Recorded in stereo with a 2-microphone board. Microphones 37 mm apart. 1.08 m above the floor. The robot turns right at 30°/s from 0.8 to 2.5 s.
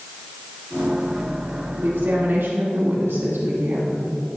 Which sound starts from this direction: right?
A woman speaking, at 1.8 s.